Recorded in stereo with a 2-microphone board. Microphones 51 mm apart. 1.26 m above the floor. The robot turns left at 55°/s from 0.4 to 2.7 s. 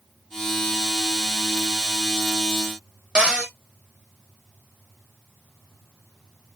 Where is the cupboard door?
20° right (ahead or behind), 0.8 m.